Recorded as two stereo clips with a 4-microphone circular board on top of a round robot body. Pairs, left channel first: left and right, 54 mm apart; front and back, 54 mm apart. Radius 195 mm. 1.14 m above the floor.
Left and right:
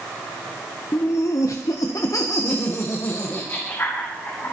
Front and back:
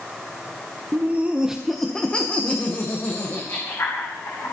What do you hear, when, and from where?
0.9 s laughter: 130° left, 1.2 m; by 4.5 s 35° left, 3 m